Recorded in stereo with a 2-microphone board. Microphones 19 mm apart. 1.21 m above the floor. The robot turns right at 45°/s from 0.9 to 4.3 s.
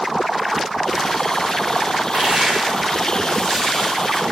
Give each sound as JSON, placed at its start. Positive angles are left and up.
{"t": 2.1, "sound": "crushing", "azimuth_deg": -70, "distance_m": 6.0}